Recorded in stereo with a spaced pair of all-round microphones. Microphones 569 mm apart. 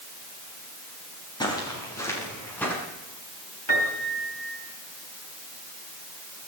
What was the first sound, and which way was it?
Footsteps, 5° left (ahead or behind).